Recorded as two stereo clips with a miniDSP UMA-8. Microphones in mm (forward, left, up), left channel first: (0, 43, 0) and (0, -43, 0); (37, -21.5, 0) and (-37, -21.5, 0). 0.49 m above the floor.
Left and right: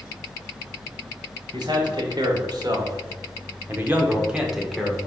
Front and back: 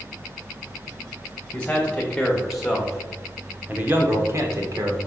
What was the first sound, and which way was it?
A man speaking, 75° right.